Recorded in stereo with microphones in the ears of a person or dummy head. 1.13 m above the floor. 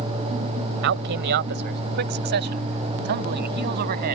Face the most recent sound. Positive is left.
turn(degrees=-50)  # may be behind; listen again after turning